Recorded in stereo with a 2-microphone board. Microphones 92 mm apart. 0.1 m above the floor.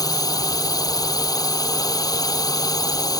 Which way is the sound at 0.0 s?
45° left (ahead or behind).